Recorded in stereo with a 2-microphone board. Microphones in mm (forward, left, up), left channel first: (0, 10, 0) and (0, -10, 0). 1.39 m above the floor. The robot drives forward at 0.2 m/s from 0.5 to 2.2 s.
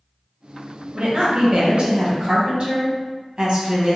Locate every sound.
0.9 s a woman speaking: 55° right (ahead or behind), 1.3 m; by 4.0 s 50° right (ahead or behind), 1.5 m